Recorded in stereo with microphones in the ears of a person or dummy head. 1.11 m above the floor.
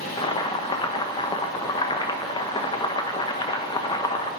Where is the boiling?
25° left (ahead or behind), 0.8 m.